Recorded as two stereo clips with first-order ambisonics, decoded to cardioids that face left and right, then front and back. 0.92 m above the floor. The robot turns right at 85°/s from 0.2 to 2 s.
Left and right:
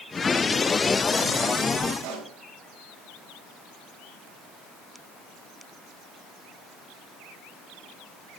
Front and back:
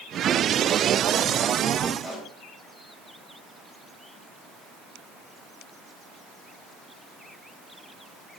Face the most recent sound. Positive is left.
turn(degrees=-105)